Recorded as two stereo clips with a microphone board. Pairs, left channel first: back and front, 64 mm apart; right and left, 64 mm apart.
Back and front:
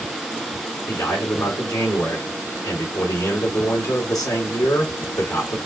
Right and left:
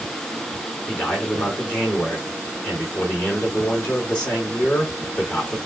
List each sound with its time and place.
0.9 s a man speaking: 160° right, 3 m